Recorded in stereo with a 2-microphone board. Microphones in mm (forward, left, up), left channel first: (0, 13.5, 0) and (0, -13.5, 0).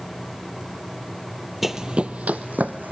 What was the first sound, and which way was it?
Running footsteps, 5° right (ahead or behind).